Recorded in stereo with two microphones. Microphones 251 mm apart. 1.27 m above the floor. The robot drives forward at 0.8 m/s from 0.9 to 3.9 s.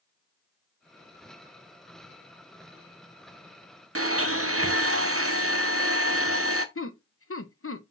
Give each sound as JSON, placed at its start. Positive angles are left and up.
{"t": 4.0, "sound": "a blender", "side_deg": -60, "distance_m": 0.8}
{"t": 6.8, "sound": "laughter", "side_deg": 60, "distance_m": 0.8}